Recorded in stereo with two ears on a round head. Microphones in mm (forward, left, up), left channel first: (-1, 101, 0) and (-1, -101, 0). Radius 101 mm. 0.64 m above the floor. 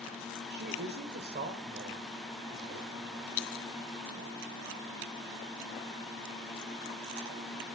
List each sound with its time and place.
0.5 s a woman speaking: 50° right (ahead or behind), 2 m; by 3.5 s 35° right (ahead or behind), 5 m